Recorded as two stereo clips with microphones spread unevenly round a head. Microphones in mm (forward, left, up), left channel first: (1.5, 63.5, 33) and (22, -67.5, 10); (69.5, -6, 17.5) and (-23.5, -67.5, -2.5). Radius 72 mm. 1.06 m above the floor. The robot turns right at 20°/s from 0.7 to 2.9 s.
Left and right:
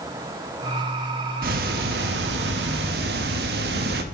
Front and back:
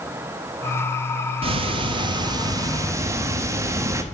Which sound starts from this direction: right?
Ticking, at 1.4 s.